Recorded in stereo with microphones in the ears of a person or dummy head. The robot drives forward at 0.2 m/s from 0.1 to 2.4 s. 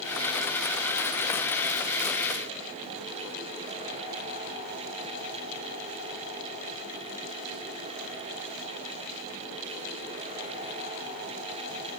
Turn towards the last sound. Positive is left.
No sound to turn to.